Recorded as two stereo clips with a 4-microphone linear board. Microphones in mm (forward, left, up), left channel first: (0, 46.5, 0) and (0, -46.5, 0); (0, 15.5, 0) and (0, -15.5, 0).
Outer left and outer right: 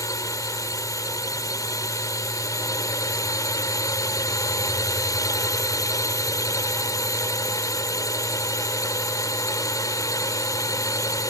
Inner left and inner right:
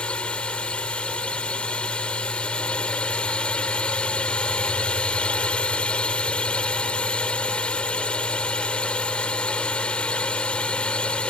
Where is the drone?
40° left (ahead or behind).